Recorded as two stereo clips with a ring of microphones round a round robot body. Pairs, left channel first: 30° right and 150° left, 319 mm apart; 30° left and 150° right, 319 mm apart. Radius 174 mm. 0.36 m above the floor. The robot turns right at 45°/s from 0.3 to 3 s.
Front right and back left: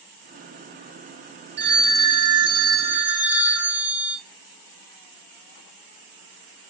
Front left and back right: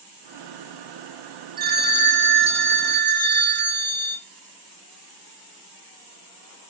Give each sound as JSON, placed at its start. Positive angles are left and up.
{"t": 1.6, "sound": "a phone ringing", "azimuth_deg": 170, "distance_m": 1.0}